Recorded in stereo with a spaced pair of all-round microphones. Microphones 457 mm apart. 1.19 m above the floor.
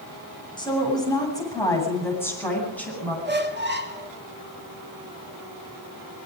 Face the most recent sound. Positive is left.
turn(degrees=-25)  # may be behind; listen again after turning